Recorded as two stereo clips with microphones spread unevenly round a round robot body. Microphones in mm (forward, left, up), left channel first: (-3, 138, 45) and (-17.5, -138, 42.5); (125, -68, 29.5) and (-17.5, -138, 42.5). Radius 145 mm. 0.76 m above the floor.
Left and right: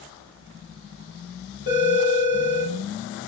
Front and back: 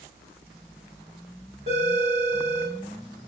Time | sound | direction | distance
1.7 | a phone ringing | 150° left | 1.3 m